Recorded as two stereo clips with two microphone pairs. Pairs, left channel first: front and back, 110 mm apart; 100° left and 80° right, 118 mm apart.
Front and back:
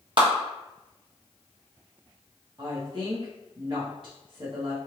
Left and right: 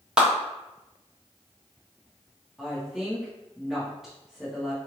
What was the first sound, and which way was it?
A clap, 165° right.